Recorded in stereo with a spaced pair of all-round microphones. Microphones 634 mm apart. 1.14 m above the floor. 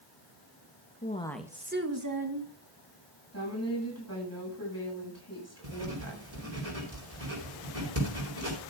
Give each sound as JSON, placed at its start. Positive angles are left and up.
{"t": 1.0, "sound": "a woman speaking", "side_deg": 15, "distance_m": 1.7}
{"t": 3.3, "sound": "a woman speaking", "side_deg": 25, "distance_m": 8.0}
{"t": 5.6, "sound": "writing", "side_deg": -60, "distance_m": 4.5}